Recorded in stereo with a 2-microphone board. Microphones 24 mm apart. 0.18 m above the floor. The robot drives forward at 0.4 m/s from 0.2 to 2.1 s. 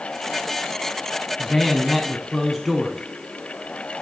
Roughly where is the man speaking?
Centre.